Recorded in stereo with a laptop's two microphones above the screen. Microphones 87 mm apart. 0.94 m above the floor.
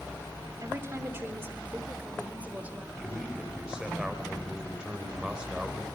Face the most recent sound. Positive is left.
turn(degrees=-10)  # may be behind; listen again after turning